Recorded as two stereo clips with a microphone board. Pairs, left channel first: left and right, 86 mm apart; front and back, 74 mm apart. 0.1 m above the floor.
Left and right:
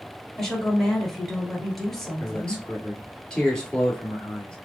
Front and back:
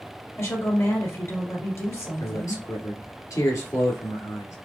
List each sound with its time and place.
0.3 s a woman speaking: 5° left, 2 m
2.2 s a man speaking: 15° left, 1.8 m